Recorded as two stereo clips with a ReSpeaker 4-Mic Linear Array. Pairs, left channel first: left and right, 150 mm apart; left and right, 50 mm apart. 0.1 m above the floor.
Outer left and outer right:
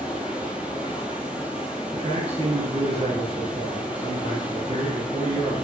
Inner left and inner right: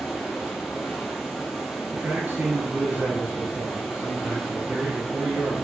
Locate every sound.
0.0 s running water: 5° right (ahead or behind), 0.8 m
1.9 s a man speaking: 45° right (ahead or behind), 1.6 m